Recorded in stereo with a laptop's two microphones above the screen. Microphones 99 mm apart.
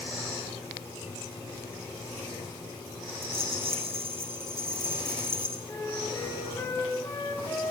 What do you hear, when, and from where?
3.2 s a rattle: 80° right, 6 m
5.7 s a flute: 30° left (ahead or behind), 6 m